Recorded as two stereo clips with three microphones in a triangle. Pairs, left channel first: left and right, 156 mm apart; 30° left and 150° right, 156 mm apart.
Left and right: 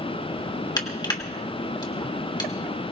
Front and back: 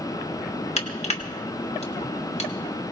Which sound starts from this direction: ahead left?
Crushing, at 0.8 s.